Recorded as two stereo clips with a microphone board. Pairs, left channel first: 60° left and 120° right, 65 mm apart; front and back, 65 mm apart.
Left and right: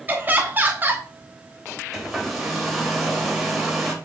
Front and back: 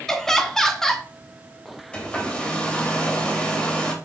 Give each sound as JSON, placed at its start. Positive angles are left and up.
{"t": 0.1, "sound": "laughter", "azimuth_deg": -80, "distance_m": 0.9}
{"t": 1.9, "sound": "a hair dryer", "azimuth_deg": -35, "distance_m": 1.1}